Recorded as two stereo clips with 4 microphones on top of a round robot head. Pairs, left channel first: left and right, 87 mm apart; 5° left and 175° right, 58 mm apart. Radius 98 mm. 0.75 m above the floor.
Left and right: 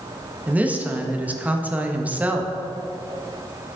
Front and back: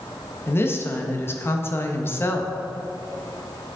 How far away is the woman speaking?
About 1.0 m.